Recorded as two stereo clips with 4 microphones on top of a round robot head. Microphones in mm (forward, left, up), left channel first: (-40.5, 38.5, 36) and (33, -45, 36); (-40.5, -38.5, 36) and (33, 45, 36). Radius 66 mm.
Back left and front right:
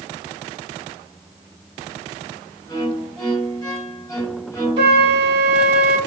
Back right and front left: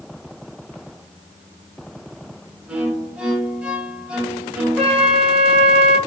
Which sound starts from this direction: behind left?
A violin, at 2.7 s.